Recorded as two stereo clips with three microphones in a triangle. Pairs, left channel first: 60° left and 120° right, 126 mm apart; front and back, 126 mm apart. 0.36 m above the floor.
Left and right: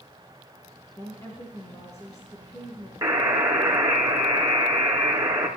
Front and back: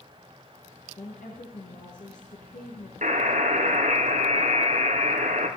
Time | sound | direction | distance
1.0 | a woman speaking | 5° right | 4 m
3.0 | a buzzer | 175° left | 3.5 m